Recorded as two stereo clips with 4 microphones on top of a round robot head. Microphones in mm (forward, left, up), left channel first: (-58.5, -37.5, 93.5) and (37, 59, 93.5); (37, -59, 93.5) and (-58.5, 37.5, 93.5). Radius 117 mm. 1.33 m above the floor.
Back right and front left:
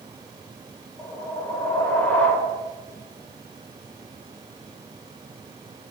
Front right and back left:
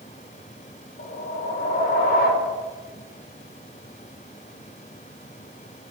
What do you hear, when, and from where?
1.0 s a whoosh: 55° right, 0.8 m